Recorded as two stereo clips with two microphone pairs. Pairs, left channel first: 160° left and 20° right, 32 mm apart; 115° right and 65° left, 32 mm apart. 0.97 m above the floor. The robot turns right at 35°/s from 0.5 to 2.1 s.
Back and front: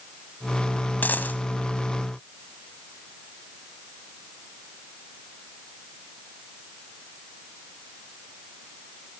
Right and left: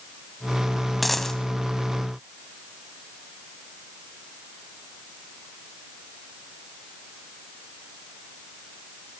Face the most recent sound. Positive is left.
turn(degrees=-165)